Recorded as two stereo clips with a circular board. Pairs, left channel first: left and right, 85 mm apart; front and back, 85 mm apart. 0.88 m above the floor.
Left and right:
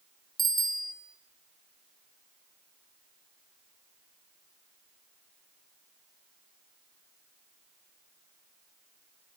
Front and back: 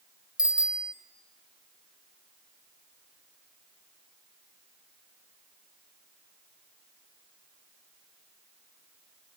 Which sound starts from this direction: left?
A bicycle bell, at 0.4 s.